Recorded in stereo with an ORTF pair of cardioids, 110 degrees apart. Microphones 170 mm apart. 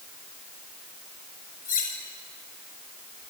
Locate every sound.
1.6 s cutlery clinking: 55° left, 5.5 m